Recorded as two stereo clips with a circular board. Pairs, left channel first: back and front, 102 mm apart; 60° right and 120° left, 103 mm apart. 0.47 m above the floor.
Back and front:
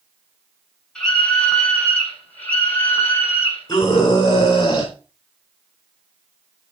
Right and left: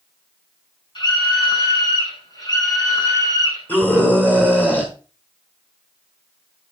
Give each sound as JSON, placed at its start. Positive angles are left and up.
{"t": 0.9, "sound": "a scream", "azimuth_deg": -100, "distance_m": 6.5}
{"t": 3.7, "sound": "a scream", "azimuth_deg": -135, "distance_m": 9.0}